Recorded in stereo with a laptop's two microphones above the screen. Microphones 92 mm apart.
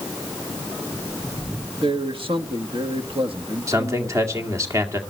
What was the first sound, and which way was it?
A man speaking, 60° right (ahead or behind).